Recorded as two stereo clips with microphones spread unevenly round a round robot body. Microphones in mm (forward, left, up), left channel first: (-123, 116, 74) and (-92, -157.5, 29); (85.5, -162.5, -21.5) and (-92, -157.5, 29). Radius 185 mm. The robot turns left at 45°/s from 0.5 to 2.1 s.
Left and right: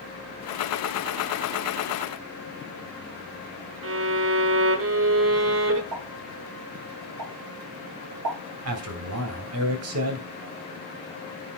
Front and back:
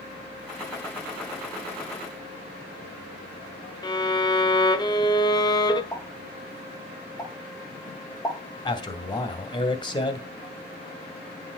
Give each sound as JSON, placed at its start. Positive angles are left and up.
{"t": 3.8, "sound": "a violin", "azimuth_deg": -60, "distance_m": 1.2}
{"t": 5.9, "sound": "a pop", "azimuth_deg": -75, "distance_m": 6.0}
{"t": 8.7, "sound": "a man speaking", "azimuth_deg": -60, "distance_m": 2.0}